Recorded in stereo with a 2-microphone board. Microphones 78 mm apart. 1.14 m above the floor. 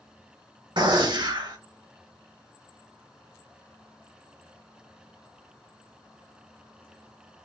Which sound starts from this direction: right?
A gunshot, at 0.8 s.